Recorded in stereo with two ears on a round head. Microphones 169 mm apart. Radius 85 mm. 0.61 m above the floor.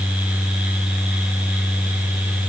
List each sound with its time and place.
Only background noise.